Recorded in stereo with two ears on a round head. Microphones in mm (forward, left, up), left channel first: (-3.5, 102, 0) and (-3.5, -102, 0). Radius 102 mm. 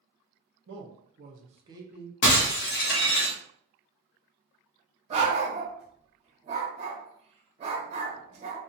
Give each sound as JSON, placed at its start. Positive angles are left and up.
{"t": 0.7, "sound": "a man speaking", "side_deg": -55, "distance_m": 0.7}
{"t": 2.2, "sound": "breaking glass", "side_deg": 55, "distance_m": 0.7}
{"t": 5.1, "sound": "a dog barking", "side_deg": -30, "distance_m": 0.6}